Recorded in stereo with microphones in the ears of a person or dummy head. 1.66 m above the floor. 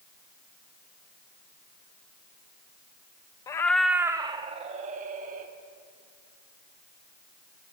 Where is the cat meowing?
20° left (ahead or behind), 0.9 m; by 5.5 s 50° right (ahead or behind), 2.5 m.